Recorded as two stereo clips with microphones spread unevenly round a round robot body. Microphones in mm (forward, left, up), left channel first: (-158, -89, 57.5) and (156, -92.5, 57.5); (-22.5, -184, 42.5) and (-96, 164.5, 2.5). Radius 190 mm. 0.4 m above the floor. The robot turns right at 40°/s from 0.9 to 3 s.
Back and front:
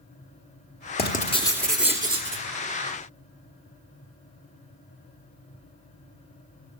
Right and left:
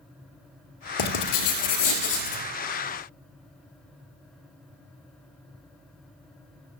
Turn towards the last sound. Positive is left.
turn(degrees=-40)